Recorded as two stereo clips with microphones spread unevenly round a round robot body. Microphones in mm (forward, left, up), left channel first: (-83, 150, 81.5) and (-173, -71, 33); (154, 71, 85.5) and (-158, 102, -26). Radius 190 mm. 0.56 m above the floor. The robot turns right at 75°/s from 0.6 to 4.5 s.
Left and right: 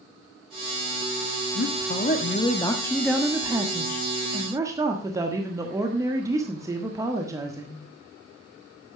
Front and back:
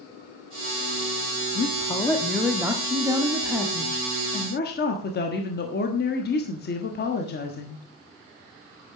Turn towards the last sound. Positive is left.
turn(degrees=-75)